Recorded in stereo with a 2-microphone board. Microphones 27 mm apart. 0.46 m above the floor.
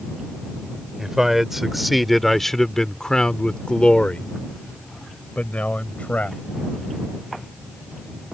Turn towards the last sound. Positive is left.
turn(degrees=65)  # may be behind; listen again after turning